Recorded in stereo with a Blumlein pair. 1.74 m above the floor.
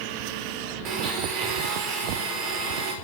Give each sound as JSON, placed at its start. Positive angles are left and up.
{"t": 0.8, "sound": "a blender", "azimuth_deg": -35, "distance_m": 4.0}